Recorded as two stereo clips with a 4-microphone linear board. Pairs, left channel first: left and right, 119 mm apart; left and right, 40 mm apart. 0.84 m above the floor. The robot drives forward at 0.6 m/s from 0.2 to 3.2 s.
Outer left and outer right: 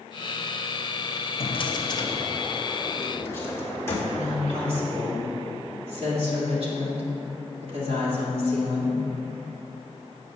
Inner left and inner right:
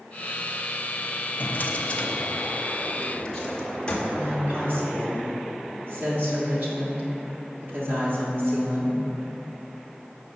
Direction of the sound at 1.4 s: 50° left (ahead or behind).